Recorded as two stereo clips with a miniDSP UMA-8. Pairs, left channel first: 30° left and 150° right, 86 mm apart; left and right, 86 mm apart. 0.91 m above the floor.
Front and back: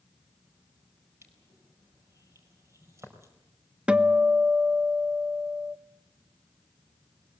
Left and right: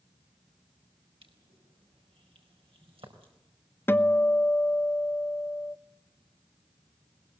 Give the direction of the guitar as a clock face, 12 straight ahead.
7 o'clock.